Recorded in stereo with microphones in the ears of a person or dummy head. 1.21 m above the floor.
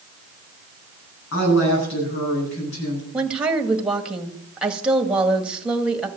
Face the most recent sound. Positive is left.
turn(degrees=-5)  # may be behind; listen again after turning